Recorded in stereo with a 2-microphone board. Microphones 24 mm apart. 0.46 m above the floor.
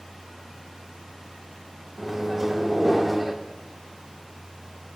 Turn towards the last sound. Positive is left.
turn(degrees=-10)  # may be behind; listen again after turning